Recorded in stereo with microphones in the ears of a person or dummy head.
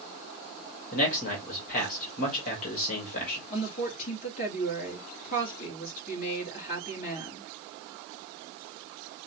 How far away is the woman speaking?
About 3 m.